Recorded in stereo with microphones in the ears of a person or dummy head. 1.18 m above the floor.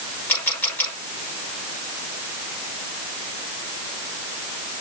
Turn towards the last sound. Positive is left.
turn(degrees=10)  # may be behind; listen again after turning